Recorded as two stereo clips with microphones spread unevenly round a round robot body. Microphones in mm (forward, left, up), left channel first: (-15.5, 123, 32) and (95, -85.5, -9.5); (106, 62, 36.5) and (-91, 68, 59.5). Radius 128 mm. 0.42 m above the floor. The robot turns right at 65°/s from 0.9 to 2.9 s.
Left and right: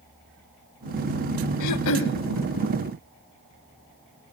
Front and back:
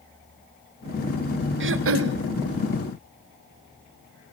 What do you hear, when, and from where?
1.6 s throat clearing: 145° left, 1.1 m; by 2.2 s straight behind, 1.1 m